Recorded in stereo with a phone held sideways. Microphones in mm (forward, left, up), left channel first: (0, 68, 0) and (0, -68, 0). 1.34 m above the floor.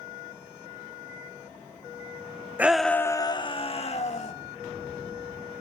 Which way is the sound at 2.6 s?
10° right (ahead or behind).